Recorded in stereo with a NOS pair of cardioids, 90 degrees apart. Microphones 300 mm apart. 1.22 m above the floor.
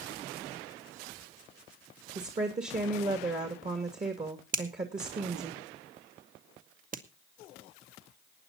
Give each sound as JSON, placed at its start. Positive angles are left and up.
{"t": 2.1, "sound": "a woman speaking", "azimuth_deg": -25, "distance_m": 2.5}
{"t": 4.5, "sound": "a finger snap", "azimuth_deg": -30, "distance_m": 1.6}